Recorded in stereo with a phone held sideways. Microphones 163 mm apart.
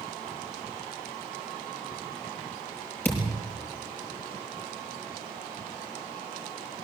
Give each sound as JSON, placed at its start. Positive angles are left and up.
{"t": 3.0, "sound": "a thud", "side_deg": 10, "distance_m": 6.5}